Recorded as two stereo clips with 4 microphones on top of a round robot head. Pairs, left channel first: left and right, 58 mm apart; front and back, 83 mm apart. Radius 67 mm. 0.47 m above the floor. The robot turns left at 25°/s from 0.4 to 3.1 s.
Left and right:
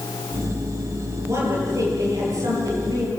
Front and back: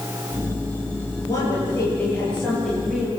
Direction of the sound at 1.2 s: 50° right.